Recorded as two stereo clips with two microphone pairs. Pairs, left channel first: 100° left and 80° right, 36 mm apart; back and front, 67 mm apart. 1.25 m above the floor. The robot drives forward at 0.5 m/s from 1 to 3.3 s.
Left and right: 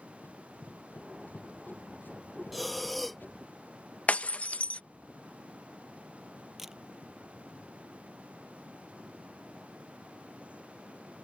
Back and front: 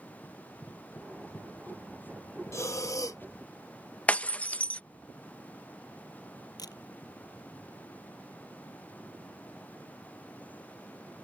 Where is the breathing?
170° right; by 3.2 s 175° right.